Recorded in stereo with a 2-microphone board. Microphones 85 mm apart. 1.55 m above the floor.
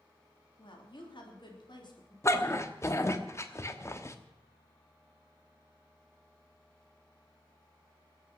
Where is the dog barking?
35° left (ahead or behind), 1.1 m.